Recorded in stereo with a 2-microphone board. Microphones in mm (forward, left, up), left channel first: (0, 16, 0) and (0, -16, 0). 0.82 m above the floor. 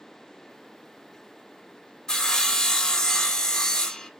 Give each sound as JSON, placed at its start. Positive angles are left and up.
{"t": 2.1, "sound": "sawing", "side_deg": 20, "distance_m": 0.6}